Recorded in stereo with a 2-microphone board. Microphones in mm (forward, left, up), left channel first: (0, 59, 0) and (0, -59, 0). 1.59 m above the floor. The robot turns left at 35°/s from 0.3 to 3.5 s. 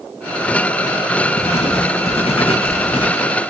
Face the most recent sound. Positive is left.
turn(degrees=45)